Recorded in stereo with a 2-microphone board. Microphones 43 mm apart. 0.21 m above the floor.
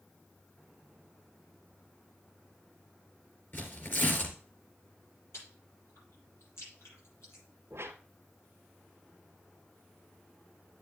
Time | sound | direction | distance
3.5 | tearing paper | 50° left (ahead or behind) | 3 m
5.3 | chewing | 70° left (ahead or behind) | 7 m
7.7 | a whoosh | 65° right (ahead or behind) | 1.3 m